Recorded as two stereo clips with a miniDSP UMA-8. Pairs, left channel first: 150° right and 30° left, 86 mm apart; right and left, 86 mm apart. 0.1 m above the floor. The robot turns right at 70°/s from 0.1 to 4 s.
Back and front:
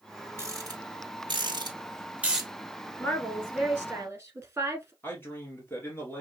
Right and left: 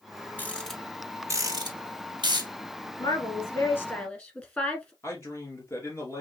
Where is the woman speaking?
95° right, 1.9 m; by 4.9 s 25° right, 1.9 m.